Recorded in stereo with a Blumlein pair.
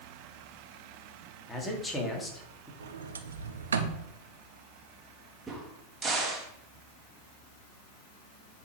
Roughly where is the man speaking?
Ahead.